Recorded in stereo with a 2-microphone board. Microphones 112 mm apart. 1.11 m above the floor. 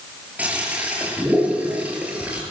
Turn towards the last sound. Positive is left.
turn(degrees=-15)  # may be behind; listen again after turning